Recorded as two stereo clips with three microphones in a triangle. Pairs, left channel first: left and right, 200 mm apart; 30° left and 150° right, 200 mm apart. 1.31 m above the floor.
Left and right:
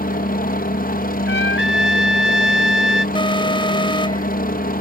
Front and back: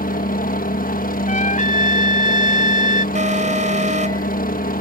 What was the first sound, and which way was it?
A helicopter, 60° left.